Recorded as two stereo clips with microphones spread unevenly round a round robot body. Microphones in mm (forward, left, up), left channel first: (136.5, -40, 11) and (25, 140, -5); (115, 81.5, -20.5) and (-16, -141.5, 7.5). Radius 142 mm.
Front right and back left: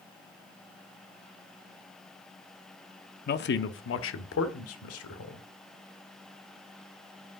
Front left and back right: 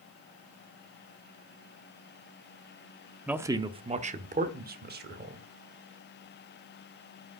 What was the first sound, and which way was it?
A man speaking, 30° right.